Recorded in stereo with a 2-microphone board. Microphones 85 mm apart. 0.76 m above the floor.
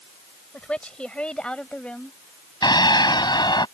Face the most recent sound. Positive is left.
turn(degrees=60)  # may be behind; listen again after turning